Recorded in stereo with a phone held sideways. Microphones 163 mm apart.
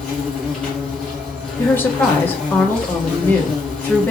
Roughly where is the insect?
Centre.